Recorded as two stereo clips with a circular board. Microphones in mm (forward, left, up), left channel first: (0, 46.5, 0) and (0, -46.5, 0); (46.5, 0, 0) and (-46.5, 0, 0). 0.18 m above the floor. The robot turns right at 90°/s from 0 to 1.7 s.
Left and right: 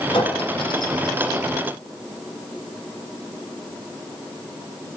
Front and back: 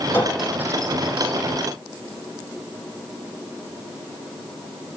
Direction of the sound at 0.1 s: 65° left.